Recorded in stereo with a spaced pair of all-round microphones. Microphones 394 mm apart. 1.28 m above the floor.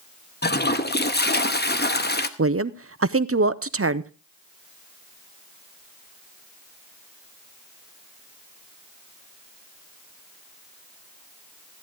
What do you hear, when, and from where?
0.4 s a toilet flushing: 25° left (ahead or behind), 0.8 m
2.4 s a woman speaking: 35° right (ahead or behind), 0.6 m